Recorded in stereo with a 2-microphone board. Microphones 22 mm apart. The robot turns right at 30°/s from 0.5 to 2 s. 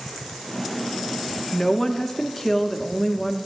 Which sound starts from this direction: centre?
A woman speaking, at 1.5 s.